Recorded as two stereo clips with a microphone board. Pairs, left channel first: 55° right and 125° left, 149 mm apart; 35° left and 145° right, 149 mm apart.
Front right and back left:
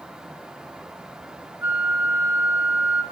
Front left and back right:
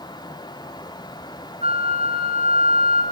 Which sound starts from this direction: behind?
A flute, at 1.6 s.